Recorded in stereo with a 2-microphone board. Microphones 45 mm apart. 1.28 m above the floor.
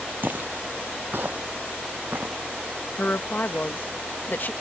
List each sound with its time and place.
0.2 s footsteps: 50° right (ahead or behind); by 2.4 s 45° right (ahead or behind)
3.0 s a woman speaking: 50° left (ahead or behind)